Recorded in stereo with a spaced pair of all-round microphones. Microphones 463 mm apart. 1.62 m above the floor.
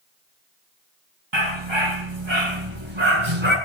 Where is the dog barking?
70° right (ahead or behind), 7.5 m; by 3.5 s 80° right, 7 m.